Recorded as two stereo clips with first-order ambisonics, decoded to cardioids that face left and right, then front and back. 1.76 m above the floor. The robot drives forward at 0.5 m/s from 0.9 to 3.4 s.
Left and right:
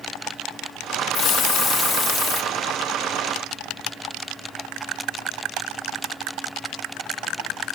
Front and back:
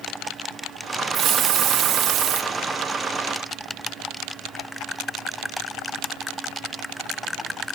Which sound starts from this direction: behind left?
A hiss, at 1.1 s.